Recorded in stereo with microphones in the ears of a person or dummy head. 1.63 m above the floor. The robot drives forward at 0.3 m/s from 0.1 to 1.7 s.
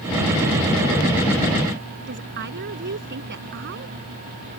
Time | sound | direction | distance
2.1 | a woman speaking | 50° right (ahead or behind) | ?